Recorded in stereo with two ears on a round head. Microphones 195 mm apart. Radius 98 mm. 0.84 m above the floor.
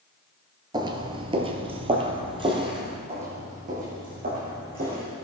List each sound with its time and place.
0.7 s footsteps: 20° right (ahead or behind), 0.8 m; by 3.0 s 25° right (ahead or behind), 1.8 m
3.1 s footsteps: 30° right (ahead or behind), 3 m; by 5.0 s 45° right (ahead or behind), 4 m